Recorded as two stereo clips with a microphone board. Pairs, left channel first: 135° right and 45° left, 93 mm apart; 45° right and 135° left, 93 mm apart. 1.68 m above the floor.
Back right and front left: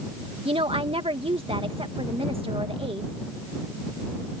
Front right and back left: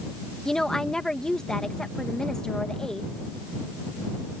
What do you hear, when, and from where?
0.5 s a woman speaking: 40° left